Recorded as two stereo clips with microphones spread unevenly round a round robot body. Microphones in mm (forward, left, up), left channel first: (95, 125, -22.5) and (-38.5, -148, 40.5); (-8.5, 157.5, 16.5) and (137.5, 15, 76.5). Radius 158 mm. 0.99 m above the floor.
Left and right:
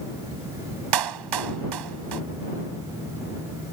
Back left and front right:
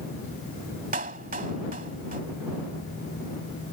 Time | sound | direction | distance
0.9 | a clap | 110° right | ?